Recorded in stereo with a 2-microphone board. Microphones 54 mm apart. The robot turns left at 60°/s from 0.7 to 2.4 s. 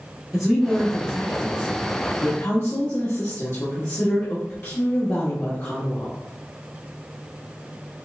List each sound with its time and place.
0.3 s a woman speaking: 170° right, 1.4 m; by 6.2 s 85° left, 1.4 m